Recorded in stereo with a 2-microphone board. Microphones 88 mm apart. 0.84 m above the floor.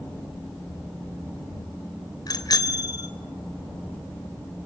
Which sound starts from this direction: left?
A bicycle bell, at 2.3 s.